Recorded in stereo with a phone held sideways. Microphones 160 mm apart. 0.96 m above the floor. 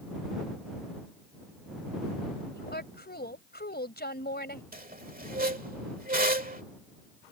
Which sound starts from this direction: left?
A woman speaking, at 2.5 s.